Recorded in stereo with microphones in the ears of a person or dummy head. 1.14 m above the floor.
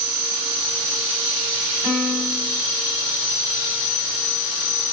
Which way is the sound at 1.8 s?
45° right (ahead or behind).